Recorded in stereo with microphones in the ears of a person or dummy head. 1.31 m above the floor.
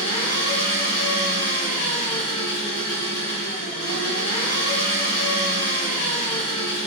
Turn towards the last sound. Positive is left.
turn(degrees=60)  # may be behind; listen again after turning